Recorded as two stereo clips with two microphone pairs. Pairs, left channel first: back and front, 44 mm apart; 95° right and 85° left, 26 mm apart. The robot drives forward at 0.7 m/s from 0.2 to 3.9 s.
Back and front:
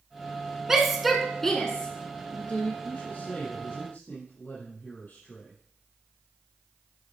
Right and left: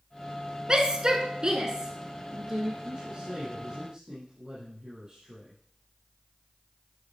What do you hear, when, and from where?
0.7 s a shout: 65° left, 1.4 m; by 2.7 s 150° left, 1.8 m
2.8 s a man speaking: 140° left, 4.5 m; by 5.6 s 145° left, 5 m